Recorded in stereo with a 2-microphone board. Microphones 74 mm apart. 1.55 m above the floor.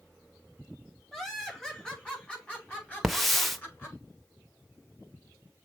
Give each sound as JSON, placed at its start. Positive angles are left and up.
{"t": 1.1, "sound": "laughter", "side_deg": 10, "distance_m": 4.0}
{"t": 3.0, "sound": "a hiss", "side_deg": 5, "distance_m": 1.0}